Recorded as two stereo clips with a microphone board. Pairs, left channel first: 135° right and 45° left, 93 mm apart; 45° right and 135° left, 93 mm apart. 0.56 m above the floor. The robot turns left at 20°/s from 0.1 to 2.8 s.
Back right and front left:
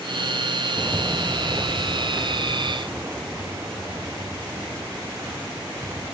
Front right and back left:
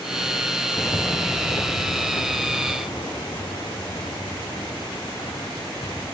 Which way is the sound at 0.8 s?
15° right.